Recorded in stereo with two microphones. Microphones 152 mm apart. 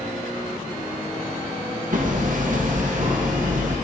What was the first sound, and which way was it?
Hammering, 60° right (ahead or behind).